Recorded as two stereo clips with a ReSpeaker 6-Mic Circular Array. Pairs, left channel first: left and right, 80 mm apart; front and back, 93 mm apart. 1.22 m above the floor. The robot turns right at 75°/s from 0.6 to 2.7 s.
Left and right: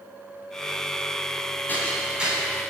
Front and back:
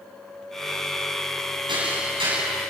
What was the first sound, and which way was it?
Hammering, 155° left.